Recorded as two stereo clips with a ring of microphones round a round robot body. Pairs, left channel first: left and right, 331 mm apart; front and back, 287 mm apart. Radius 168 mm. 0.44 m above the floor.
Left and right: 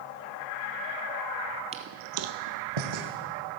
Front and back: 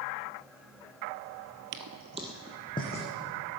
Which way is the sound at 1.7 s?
160° right.